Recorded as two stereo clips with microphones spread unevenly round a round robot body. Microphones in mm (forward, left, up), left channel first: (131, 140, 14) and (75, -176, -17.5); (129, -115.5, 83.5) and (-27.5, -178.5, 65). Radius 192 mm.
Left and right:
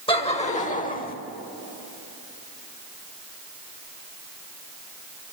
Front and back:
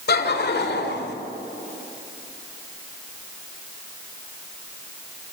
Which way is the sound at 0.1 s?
5° left.